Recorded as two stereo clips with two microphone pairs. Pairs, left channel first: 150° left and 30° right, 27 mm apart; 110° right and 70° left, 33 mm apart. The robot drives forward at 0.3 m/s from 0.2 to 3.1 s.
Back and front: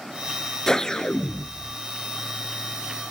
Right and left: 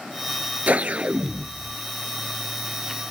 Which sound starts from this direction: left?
A whoosh, at 0.7 s.